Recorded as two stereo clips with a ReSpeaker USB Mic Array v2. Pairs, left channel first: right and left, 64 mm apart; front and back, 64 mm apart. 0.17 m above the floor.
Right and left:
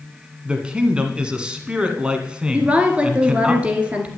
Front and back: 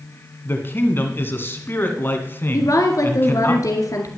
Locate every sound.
0.5 s a man speaking: 25° left, 1.8 m
2.5 s a woman speaking: 20° left, 2 m